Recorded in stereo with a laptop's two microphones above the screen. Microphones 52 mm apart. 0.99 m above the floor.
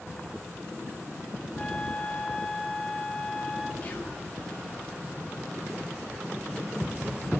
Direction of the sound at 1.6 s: 15° left (ahead or behind).